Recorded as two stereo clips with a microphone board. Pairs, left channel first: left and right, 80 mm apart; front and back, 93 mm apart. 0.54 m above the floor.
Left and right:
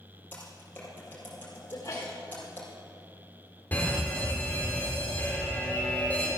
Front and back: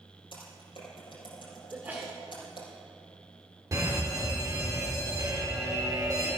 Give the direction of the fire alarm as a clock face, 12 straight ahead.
7 o'clock.